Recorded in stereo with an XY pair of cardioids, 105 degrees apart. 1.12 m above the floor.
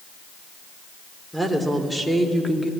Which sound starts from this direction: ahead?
A woman speaking, at 1.3 s.